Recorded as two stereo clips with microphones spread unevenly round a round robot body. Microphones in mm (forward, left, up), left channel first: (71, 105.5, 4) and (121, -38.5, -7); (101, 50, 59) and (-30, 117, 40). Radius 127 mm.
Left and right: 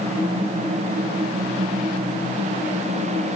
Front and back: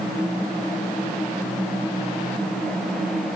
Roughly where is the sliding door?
I don't hear a sliding door.